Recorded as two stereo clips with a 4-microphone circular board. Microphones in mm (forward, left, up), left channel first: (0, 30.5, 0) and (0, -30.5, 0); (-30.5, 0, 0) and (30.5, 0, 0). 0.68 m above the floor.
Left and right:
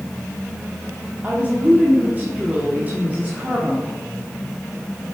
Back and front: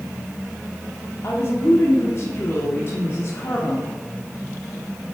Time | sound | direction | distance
1.2 | a woman speaking | 150° right | 1.6 m